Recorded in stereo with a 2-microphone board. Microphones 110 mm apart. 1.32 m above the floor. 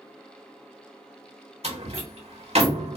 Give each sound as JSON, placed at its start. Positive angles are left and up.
{"t": 1.6, "sound": "a door slam", "side_deg": -70, "distance_m": 1.7}